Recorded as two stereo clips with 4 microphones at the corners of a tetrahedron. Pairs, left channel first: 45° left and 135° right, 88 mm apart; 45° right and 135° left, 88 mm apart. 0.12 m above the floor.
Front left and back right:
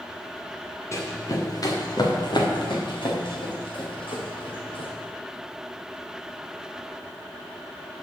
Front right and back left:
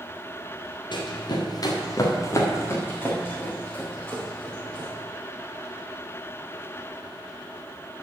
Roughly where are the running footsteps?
Ahead.